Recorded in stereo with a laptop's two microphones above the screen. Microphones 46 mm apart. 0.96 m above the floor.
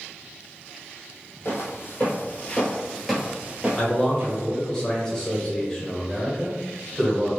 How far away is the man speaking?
About 0.9 m.